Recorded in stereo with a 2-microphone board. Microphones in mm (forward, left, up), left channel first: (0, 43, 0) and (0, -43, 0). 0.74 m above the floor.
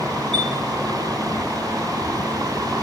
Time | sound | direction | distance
0.3 | a chime | 75° right (ahead or behind) | 7.5 m